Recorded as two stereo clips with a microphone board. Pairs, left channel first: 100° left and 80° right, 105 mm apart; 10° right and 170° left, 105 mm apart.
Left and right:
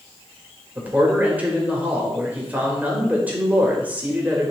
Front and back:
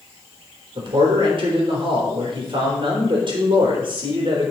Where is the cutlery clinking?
No cutlery clinking in this recording.